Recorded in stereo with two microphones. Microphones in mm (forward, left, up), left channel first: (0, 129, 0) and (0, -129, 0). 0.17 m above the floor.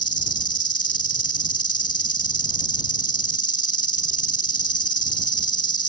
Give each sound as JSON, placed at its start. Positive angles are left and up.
{"t": 0.0, "sound": "an insect", "side_deg": 60}